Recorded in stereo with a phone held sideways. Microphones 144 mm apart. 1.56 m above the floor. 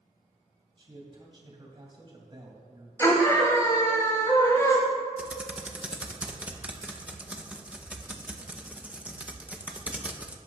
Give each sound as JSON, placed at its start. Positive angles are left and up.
{"t": 0.8, "sound": "a man speaking", "side_deg": -35, "distance_m": 2.5}
{"t": 3.0, "sound": "a scream", "side_deg": 20, "distance_m": 3.5}
{"t": 5.2, "sound": "typing on a keyboard", "side_deg": -10, "distance_m": 0.8}